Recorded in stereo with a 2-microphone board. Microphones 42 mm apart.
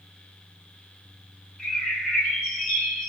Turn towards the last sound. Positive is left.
turn(degrees=25)  # may be behind; listen again after turning